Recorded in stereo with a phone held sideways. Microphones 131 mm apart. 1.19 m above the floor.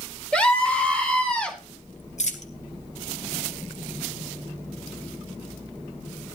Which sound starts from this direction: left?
A dropped coin, at 2.2 s.